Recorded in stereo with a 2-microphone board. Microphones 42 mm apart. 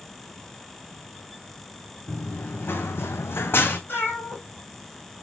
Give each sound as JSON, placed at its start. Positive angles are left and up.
{"t": 2.1, "sound": "running footsteps", "side_deg": 45, "distance_m": 1.7}
{"t": 3.9, "sound": "a cat meowing", "side_deg": 60, "distance_m": 4.5}